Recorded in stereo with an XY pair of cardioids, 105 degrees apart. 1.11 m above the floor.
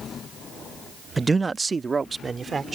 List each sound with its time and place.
1.2 s a man speaking: 20° right; by 2.8 s 30° right